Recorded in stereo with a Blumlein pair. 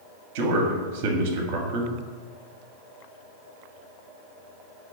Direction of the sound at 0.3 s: 50° right.